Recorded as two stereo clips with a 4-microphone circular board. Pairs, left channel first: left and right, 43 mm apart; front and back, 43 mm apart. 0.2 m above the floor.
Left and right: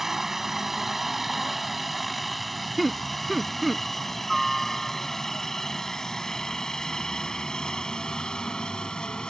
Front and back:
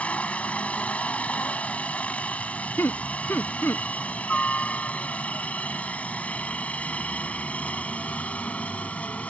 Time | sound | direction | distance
0.0 | a helicopter | 15° right | ?
2.8 | laughter | 5° right | ?